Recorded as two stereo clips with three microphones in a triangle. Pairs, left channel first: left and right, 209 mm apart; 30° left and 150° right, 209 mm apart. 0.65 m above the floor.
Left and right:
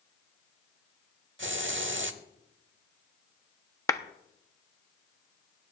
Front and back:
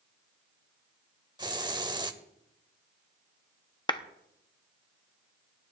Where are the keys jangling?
I don't hear keys jangling.